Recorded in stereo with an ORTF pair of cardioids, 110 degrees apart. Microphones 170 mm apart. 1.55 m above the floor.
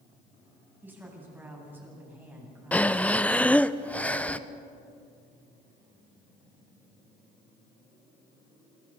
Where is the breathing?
10° left, 0.7 m.